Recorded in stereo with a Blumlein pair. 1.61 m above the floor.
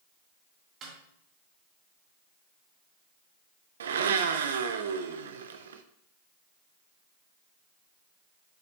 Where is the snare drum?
25° right, 3 m.